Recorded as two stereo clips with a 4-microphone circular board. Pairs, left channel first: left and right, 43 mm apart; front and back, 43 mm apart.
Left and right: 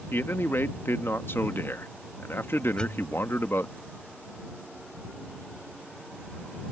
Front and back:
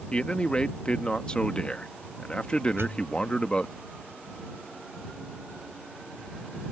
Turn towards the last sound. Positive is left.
turn(degrees=165)